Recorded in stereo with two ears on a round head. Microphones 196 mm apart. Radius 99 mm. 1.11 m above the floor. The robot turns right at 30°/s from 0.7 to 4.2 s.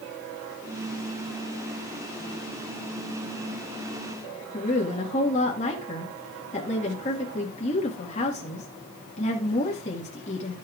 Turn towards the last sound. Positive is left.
turn(degrees=30)  # may be behind; listen again after turning